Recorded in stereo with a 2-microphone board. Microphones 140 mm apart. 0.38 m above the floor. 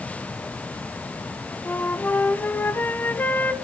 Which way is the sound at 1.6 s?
15° left (ahead or behind).